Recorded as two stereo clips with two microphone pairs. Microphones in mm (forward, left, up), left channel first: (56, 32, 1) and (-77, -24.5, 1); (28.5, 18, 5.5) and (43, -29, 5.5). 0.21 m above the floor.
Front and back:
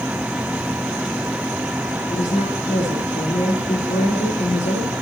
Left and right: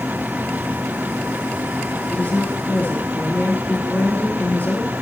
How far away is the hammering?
No hammering in this recording.